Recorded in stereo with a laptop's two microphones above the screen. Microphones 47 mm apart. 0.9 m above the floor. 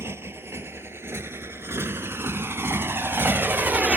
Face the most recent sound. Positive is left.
turn(degrees=-25)  # may be behind; listen again after turning